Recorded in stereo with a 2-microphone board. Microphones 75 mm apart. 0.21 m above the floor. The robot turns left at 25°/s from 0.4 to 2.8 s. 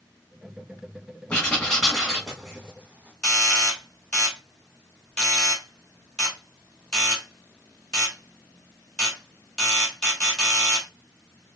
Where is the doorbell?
10° left (ahead or behind), 1.4 m.